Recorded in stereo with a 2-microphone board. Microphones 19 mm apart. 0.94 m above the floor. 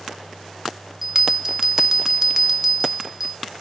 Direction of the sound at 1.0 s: 25° right (ahead or behind).